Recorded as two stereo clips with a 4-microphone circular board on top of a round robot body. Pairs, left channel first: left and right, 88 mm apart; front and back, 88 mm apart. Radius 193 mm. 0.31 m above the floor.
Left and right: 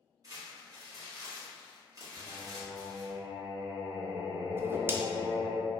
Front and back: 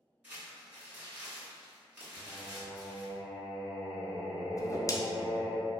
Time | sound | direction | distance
0.2 | crumpling | 115° right | 1.8 m
2.2 | singing | 175° left | 1.0 m
4.6 | a whoosh | 35° right | 0.5 m